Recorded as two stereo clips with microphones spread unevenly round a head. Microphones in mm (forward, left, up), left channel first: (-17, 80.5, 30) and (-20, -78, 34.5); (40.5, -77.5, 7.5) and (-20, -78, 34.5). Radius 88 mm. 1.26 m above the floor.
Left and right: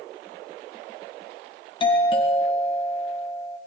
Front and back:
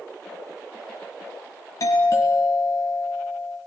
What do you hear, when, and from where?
1.8 s a doorbell: 30° left, 3 m